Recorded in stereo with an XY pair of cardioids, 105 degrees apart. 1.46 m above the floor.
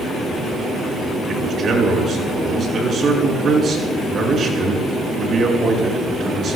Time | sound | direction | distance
1.3 | a man speaking | 50° right | 6 m